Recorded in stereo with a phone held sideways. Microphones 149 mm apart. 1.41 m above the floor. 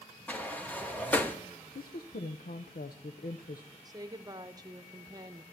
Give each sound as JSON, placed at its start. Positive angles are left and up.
{"t": 0.3, "sound": "a sliding door", "side_deg": 10, "distance_m": 1.2}
{"t": 1.8, "sound": "a woman speaking", "side_deg": 80, "distance_m": 0.7}
{"t": 3.9, "sound": "a woman speaking", "side_deg": -25, "distance_m": 0.8}